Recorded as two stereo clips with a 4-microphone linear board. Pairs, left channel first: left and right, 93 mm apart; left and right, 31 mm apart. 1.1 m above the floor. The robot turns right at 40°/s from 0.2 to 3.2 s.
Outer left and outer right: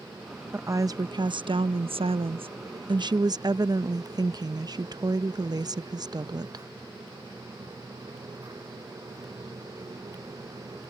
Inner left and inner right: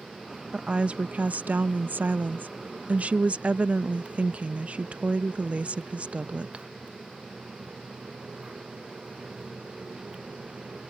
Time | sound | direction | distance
0.5 | a woman speaking | 155° right | ?